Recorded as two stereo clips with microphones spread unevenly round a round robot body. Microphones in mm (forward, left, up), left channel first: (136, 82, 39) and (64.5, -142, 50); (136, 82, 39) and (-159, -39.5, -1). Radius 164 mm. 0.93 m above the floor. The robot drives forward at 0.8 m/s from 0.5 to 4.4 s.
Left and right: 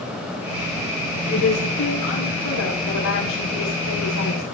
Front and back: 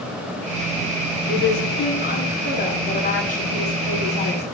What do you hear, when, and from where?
1.3 s a woman speaking: 80° left, 9.5 m; by 4.5 s 95° left, 9.5 m